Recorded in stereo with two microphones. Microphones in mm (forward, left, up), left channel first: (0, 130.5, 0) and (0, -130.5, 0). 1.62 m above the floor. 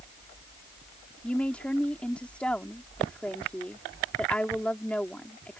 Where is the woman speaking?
5° left (ahead or behind).